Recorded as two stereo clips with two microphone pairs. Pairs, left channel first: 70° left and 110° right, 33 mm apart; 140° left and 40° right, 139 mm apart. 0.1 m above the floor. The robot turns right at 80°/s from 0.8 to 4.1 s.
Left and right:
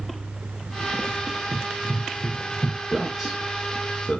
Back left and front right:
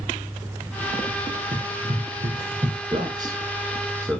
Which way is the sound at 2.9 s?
40° right.